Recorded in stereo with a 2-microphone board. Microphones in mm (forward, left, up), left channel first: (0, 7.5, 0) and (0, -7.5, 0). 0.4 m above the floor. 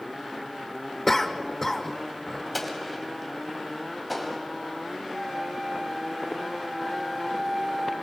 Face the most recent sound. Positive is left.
turn(degrees=-25)  # may be behind; listen again after turning